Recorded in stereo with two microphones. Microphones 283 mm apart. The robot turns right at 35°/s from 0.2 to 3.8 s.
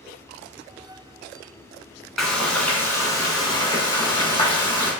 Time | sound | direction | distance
2.2 | frying | centre (ahead or behind) | 0.8 m